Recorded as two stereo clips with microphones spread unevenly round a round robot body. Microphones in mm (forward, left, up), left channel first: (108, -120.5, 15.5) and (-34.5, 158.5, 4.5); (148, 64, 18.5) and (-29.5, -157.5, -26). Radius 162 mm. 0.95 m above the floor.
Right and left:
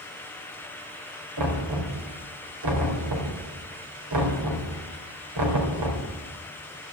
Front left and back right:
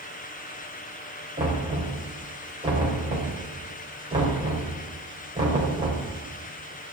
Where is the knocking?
155° left, 3.5 m.